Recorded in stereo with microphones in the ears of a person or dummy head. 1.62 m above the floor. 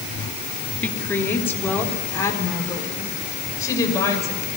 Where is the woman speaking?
10° left (ahead or behind), 2.5 m; by 4.5 s 20° left (ahead or behind), 6.5 m.